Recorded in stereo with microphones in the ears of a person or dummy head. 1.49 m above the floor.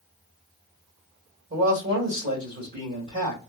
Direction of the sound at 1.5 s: 45° right (ahead or behind).